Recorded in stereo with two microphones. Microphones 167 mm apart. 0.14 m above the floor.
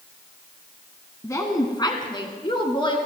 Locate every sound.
1.2 s a woman speaking: 20° left (ahead or behind), 1.5 m; by 3.0 s 30° left (ahead or behind), 2 m